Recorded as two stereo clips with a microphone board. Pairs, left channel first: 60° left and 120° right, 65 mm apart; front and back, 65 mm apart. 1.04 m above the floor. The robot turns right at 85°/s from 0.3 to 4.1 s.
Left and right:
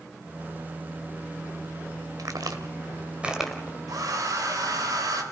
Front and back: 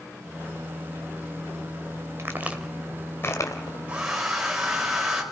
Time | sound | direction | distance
2.2 | a crack | 140° right | 1.8 m
3.9 | a hair dryer | 115° right | 3.5 m